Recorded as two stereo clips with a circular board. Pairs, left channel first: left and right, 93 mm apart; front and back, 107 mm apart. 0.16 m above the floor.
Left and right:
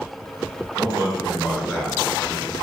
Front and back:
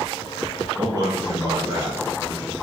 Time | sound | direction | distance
0.8 | a man speaking | 145° right | 1.7 m